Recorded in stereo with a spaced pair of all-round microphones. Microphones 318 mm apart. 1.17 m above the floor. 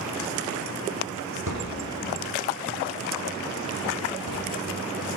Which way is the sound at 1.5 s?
80° right.